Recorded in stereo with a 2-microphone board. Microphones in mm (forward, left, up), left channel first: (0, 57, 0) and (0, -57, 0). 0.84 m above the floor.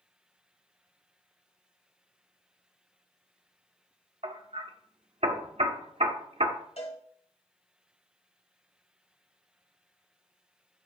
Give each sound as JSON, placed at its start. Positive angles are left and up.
{"t": 4.2, "sound": "hammering", "side_deg": -65, "distance_m": 1.0}
{"t": 6.8, "sound": "a cowbell", "side_deg": 65, "distance_m": 2.0}